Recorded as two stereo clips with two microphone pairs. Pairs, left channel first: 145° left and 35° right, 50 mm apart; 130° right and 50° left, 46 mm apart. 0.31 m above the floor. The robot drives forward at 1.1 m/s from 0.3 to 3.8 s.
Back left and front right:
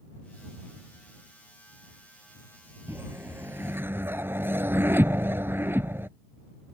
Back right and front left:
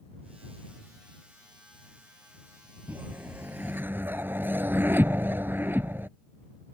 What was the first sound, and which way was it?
A whoosh, 5° left.